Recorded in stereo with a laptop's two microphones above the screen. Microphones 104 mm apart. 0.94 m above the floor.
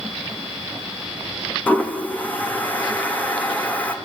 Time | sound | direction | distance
1.7 | a toilet flushing | 15° left (ahead or behind) | 1.4 m